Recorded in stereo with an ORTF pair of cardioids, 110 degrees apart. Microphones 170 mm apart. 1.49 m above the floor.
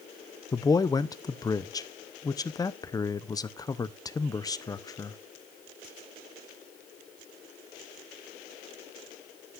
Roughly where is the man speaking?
Ahead.